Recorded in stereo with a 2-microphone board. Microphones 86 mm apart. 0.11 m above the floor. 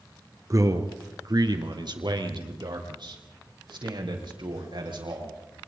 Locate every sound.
0.5 s a man speaking: 40° right (ahead or behind), 1.9 m; by 5.3 s 75° right (ahead or behind), 6 m